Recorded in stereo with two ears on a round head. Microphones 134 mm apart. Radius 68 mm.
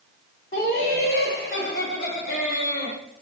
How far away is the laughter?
About 1.5 m.